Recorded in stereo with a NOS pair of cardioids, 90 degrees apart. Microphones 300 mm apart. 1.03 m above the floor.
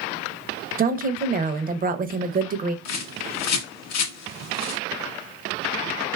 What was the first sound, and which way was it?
A woman speaking, 30° right.